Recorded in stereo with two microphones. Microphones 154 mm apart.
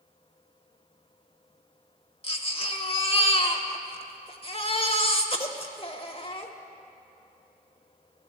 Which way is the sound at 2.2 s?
40° left (ahead or behind).